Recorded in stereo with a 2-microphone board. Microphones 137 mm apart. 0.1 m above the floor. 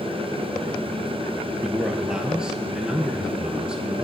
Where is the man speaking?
5° right (ahead or behind), 1.7 m.